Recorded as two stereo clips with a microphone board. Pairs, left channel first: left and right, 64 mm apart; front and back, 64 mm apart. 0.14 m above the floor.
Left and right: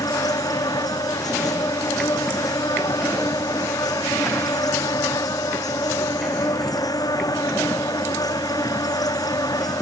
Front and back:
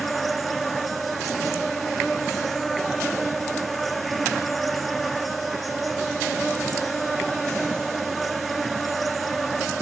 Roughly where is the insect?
Left.